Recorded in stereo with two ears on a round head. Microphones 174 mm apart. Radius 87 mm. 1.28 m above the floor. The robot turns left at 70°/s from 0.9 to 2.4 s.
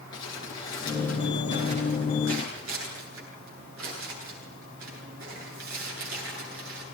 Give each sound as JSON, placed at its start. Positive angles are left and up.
{"t": 0.1, "sound": "crumpling", "side_deg": 20, "distance_m": 10.0}